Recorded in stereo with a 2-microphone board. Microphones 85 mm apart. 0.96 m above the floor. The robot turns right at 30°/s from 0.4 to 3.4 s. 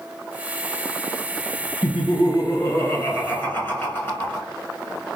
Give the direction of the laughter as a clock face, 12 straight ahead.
9 o'clock.